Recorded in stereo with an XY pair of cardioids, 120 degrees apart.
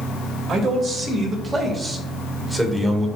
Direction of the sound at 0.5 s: 45° right.